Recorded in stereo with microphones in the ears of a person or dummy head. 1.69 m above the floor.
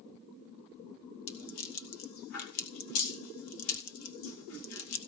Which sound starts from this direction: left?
A rattle, at 1.3 s.